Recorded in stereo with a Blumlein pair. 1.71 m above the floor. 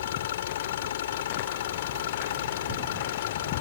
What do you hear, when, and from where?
0.0 s an engine running: 60° left